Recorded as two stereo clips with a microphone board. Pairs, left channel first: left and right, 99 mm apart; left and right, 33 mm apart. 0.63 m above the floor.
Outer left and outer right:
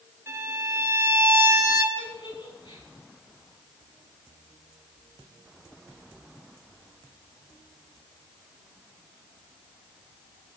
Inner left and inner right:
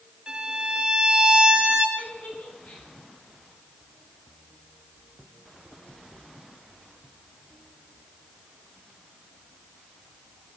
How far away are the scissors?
No scissors in this recording.